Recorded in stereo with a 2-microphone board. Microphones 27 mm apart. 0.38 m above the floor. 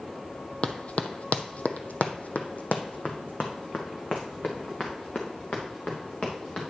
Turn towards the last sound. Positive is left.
turn(degrees=45)  # may be behind; listen again after turning